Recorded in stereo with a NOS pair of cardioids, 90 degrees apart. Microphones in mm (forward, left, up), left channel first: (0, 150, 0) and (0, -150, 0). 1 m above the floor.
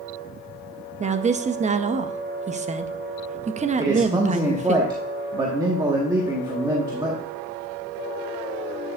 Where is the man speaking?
15° right, 1.5 m.